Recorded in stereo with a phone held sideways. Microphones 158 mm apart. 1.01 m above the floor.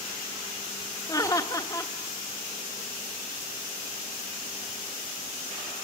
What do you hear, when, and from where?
1.1 s laughter: 25° left (ahead or behind), 1.2 m